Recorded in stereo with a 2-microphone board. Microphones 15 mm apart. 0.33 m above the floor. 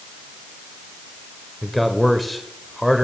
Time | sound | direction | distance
1.6 | a man speaking | centre (ahead or behind) | 1.1 m